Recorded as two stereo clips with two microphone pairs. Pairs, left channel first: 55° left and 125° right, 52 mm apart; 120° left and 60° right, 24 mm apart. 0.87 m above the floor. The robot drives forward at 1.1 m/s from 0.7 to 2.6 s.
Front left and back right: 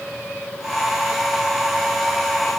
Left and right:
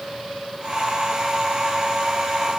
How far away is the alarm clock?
I don't hear an alarm clock.